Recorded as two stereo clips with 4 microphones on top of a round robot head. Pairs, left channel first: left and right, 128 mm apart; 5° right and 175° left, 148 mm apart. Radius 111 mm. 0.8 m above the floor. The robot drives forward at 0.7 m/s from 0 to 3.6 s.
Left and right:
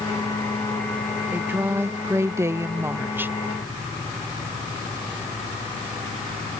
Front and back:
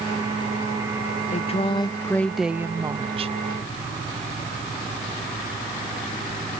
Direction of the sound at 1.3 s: 20° right.